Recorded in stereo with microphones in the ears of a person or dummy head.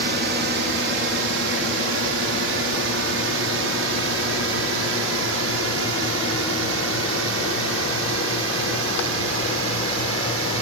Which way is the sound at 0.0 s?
55° right (ahead or behind).